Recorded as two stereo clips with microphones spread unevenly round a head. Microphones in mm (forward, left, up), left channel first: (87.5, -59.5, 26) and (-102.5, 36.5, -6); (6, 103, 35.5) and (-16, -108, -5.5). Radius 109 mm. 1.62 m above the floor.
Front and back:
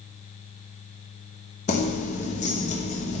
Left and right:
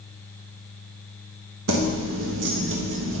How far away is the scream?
No scream in this recording.